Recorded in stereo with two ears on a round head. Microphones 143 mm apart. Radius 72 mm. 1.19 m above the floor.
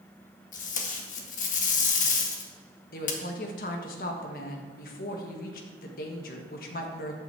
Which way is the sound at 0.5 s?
50° left (ahead or behind).